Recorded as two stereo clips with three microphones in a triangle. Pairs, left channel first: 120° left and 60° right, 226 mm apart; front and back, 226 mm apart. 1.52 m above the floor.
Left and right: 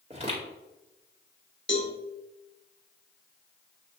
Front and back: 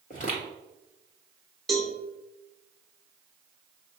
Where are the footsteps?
15° right, 1.9 m.